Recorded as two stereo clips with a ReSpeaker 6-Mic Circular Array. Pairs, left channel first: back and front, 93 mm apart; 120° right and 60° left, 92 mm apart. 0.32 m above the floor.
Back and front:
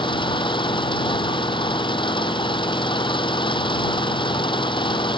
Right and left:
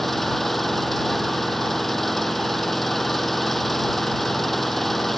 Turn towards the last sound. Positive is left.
turn(degrees=150)